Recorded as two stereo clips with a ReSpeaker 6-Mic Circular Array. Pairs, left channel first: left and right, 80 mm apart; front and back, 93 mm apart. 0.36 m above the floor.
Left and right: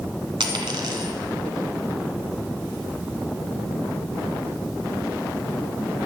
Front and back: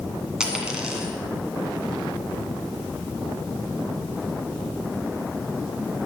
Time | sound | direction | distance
0.4 | a dropped coin | 100° right | 1.9 m